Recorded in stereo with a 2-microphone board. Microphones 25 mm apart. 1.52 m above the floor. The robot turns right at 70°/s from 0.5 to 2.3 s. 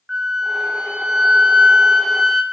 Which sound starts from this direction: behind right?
A flute, at 0.1 s.